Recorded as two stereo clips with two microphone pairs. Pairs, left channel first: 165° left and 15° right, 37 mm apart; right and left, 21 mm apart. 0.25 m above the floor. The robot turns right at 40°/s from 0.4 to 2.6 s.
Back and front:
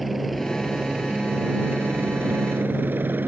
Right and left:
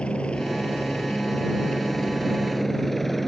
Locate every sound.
0.0 s a helicopter: 110° right; by 3.3 s 5° right